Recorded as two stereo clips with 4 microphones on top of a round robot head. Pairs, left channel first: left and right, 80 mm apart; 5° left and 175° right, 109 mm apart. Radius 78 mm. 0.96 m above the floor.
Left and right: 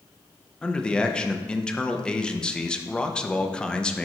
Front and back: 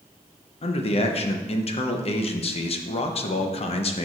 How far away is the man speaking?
About 0.8 m.